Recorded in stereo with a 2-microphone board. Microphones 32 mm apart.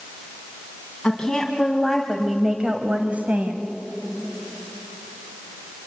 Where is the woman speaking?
25° left (ahead or behind), 2.5 m; by 3.7 s 60° right (ahead or behind), 2 m.